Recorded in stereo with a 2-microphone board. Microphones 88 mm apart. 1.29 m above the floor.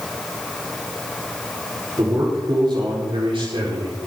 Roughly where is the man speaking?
Right.